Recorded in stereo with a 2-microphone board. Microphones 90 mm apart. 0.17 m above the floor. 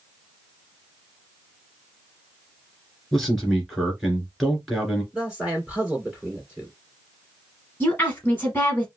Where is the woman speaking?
25° left (ahead or behind), 1.1 m.